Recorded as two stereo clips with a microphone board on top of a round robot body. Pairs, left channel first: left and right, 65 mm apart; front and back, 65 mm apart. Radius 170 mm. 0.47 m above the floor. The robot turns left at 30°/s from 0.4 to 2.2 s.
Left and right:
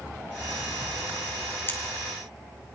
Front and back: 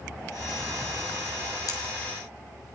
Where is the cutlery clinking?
35° left, 3 m; by 1.8 s 30° left, 3 m.